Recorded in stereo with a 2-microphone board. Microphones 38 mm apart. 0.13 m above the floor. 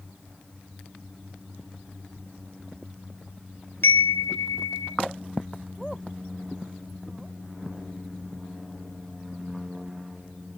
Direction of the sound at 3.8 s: 70° left (ahead or behind).